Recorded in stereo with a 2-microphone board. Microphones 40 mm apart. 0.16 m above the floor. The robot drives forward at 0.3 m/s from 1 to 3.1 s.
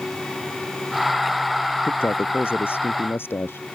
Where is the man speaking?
75° left (ahead or behind).